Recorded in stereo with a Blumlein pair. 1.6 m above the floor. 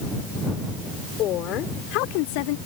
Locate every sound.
1.2 s a woman speaking: 35° left; by 2.6 s 50° left